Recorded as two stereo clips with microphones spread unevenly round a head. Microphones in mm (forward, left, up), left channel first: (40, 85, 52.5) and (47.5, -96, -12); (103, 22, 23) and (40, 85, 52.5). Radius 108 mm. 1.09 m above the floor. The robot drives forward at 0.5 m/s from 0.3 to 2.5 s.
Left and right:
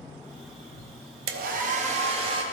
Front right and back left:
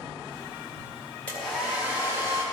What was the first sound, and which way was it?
A hair dryer, 125° right.